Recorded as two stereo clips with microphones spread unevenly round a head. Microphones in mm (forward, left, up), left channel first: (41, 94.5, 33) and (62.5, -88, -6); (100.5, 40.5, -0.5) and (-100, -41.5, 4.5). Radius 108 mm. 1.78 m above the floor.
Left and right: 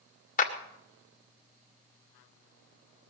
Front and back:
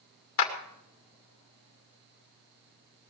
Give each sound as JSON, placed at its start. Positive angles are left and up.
{"t": 0.4, "sound": "a clap", "azimuth_deg": 55, "distance_m": 2.5}